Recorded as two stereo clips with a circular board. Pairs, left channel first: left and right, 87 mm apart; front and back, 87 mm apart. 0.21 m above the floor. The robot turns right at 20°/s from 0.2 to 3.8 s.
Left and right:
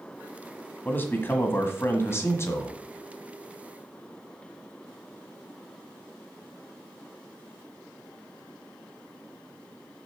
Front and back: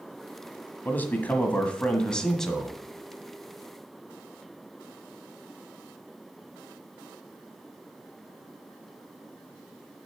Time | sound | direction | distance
0.8 | a man speaking | 45° left | 1.4 m